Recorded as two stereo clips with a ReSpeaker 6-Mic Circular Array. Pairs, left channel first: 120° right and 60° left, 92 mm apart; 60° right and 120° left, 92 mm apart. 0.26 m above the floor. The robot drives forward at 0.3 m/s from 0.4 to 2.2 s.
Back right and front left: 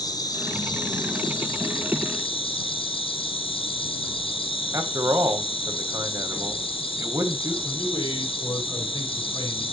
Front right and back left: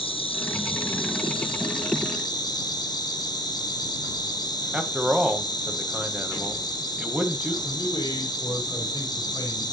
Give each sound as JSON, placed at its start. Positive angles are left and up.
{"t": 0.0, "sound": "an insect", "azimuth_deg": -70, "distance_m": 1.0}
{"t": 4.7, "sound": "a man speaking", "azimuth_deg": 45, "distance_m": 1.1}
{"t": 7.6, "sound": "a man speaking", "azimuth_deg": -90, "distance_m": 5.0}